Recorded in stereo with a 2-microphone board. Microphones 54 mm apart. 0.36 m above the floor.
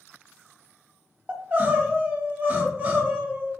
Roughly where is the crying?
Right.